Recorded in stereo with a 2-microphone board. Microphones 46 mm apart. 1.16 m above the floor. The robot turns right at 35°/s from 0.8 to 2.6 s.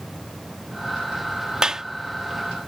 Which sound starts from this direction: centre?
A clap, at 1.6 s.